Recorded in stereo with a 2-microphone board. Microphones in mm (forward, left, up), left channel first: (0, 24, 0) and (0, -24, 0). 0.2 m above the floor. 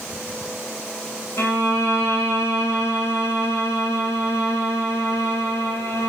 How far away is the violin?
About 2.5 m.